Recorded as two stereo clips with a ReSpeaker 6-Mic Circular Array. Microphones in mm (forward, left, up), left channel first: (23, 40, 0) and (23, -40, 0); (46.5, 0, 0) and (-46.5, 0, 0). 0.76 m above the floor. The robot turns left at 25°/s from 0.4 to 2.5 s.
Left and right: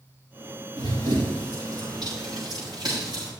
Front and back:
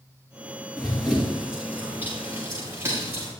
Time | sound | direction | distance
0.8 | running footsteps | 85° right | 6 m